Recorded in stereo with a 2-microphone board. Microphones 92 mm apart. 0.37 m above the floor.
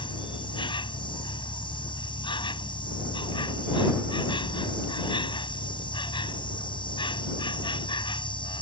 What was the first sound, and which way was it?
An insect, 65° left (ahead or behind).